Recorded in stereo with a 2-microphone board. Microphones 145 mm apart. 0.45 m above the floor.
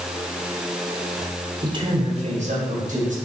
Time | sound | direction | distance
1.6 | a man speaking | 30° right (ahead or behind) | 1.5 m